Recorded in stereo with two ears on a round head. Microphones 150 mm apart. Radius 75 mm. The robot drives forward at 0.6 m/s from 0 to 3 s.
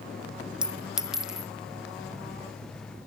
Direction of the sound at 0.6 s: 5° right (ahead or behind).